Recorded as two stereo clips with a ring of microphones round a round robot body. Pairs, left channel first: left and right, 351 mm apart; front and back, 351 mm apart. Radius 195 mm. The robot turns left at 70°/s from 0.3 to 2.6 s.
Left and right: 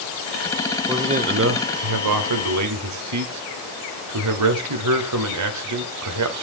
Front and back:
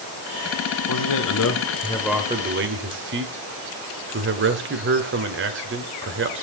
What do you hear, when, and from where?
0.9 s a man speaking: 5° right, 1.9 m; by 6.4 s 125° right, 1.9 m